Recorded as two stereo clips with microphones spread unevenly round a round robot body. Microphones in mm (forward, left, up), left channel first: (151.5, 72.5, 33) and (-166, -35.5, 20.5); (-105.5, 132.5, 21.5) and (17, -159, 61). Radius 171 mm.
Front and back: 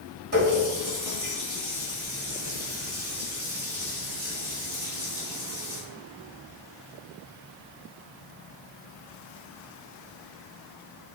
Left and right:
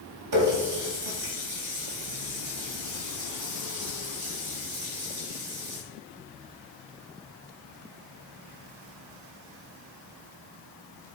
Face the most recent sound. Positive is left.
turn(degrees=-100)